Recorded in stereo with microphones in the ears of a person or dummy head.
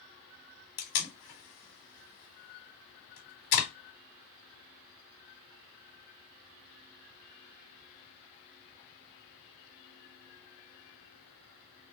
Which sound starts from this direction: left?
Tape being pulled, at 0.8 s.